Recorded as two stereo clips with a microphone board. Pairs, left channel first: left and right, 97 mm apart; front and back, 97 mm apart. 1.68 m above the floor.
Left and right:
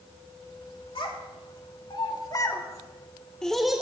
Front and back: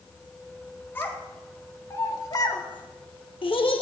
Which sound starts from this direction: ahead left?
A child speaking, at 0.9 s.